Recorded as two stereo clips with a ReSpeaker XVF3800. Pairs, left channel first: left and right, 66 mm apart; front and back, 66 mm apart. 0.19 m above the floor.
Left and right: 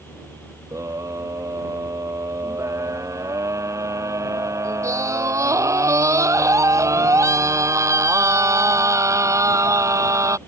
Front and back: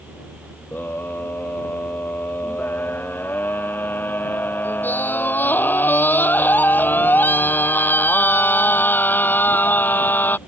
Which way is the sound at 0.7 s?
55° right.